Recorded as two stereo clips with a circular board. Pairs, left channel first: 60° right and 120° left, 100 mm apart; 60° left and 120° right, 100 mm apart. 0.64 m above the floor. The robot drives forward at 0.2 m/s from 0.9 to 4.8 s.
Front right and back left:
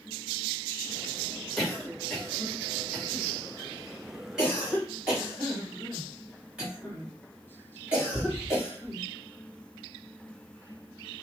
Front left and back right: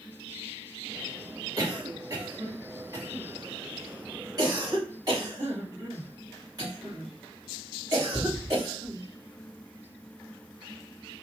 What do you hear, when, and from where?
1.6 s a cough: 150° right, 1.3 m; by 9.0 s 165° right, 1.7 m